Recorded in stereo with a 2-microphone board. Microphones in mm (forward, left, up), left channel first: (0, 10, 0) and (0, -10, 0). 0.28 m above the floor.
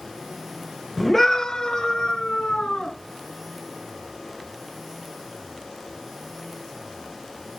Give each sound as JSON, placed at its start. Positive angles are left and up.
{"t": 1.0, "sound": "a scream", "side_deg": 10, "distance_m": 1.2}